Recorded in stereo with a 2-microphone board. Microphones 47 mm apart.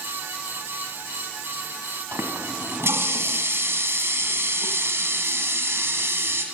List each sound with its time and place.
2.1 s a running tap: 75° right (ahead or behind), 1.8 m